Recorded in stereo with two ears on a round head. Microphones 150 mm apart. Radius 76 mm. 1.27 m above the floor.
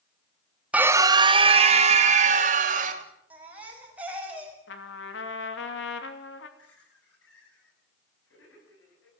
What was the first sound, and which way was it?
A scream, 10° right (ahead or behind).